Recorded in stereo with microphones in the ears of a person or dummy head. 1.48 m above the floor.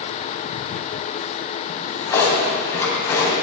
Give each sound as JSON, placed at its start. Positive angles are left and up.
{"t": 1.7, "sound": "a drawer", "side_deg": 15, "distance_m": 3.0}